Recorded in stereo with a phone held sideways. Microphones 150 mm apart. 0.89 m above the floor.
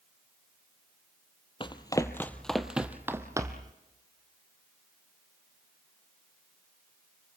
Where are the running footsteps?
35° left (ahead or behind), 1.1 m; by 3.7 s 25° right (ahead or behind), 1.6 m.